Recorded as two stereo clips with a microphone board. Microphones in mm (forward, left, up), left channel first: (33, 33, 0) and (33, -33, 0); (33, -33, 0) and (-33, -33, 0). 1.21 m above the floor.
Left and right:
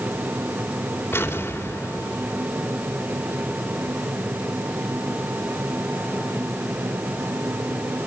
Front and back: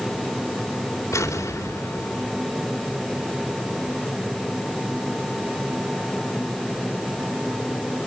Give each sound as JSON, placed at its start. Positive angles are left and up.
{"t": 1.1, "sound": "an explosion", "azimuth_deg": 35, "distance_m": 3.5}